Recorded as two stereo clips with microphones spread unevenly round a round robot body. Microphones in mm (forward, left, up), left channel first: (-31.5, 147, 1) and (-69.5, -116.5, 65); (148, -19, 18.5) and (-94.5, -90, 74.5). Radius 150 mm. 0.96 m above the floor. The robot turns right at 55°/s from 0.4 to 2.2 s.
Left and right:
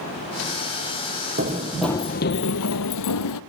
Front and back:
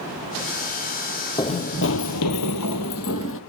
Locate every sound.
1.4 s running footsteps: 65° right, 1.4 m; by 3.4 s 70° left, 1.5 m